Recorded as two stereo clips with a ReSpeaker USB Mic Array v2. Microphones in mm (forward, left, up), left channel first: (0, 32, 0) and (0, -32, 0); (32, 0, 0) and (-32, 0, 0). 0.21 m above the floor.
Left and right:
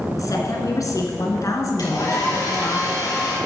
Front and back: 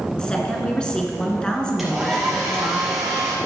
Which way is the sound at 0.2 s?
75° left.